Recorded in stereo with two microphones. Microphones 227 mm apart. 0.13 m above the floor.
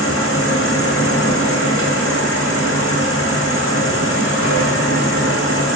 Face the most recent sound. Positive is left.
turn(degrees=85)